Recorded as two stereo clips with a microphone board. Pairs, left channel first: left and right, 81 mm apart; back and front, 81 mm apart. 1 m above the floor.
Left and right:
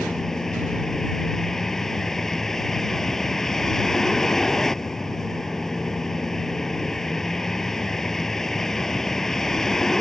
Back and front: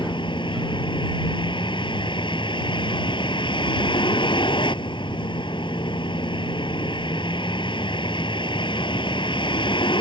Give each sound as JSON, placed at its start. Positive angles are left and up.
{"t": 0.0, "sound": "a vehicle", "azimuth_deg": 175}